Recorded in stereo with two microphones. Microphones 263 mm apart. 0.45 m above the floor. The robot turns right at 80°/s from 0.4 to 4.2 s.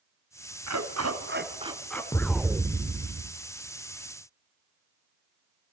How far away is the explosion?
About 0.8 m.